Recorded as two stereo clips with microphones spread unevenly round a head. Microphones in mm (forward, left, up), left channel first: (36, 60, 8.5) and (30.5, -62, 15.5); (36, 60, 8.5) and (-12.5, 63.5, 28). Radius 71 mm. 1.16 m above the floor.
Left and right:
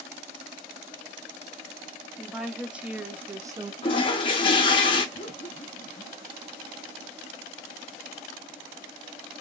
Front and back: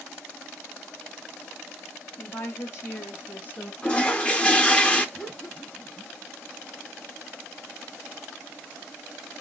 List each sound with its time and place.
2.2 s a woman speaking: 5° right, 1.3 m; by 3.7 s 40° right, 0.5 m
3.8 s a toilet flushing: 80° left, 0.6 m
5.2 s laughter: 65° left, 1.0 m